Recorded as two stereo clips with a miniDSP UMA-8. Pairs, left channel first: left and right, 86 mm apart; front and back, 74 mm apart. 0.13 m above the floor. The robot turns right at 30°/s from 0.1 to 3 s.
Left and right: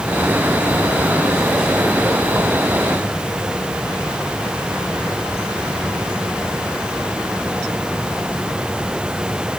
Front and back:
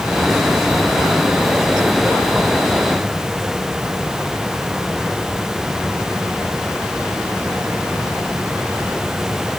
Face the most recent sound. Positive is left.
No sound to turn to.